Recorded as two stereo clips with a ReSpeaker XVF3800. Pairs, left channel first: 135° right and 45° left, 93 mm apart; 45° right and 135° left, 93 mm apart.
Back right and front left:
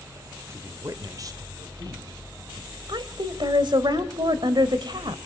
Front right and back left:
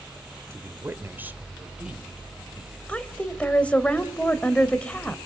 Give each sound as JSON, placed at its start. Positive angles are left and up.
{"t": 0.5, "sound": "a woman speaking", "azimuth_deg": 90, "distance_m": 1.8}
{"t": 2.9, "sound": "a woman speaking", "azimuth_deg": 30, "distance_m": 2.0}